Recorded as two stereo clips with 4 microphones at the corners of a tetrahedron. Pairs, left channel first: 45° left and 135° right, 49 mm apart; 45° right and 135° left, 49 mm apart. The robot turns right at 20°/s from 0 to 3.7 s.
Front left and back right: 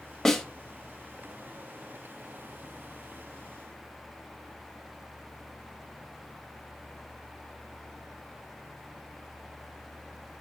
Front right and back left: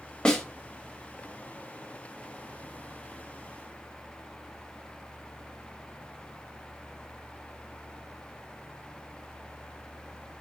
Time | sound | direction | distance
0.2 | a snare drum | 20° right | 0.9 m